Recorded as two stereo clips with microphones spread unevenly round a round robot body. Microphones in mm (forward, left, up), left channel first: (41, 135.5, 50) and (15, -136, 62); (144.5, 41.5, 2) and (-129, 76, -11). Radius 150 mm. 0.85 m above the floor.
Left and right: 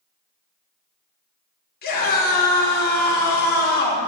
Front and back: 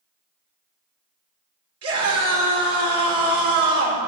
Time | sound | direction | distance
1.8 | a scream | 140° left | 3.5 m